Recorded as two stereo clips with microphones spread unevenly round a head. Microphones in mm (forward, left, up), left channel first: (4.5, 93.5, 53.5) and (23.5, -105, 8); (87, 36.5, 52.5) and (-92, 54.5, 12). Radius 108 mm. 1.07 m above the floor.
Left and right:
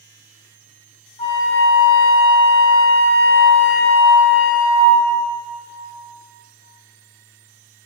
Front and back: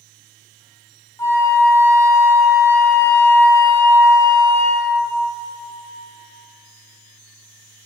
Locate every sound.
1.2 s a flute: 50° left, 1.3 m